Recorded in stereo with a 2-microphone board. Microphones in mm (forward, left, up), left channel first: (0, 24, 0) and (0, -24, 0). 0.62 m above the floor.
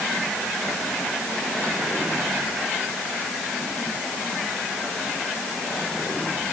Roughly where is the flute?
No flute in this recording.